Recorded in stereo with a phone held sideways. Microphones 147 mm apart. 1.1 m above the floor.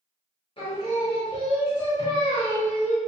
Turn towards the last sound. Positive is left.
turn(degrees=40)  # may be behind; listen again after turning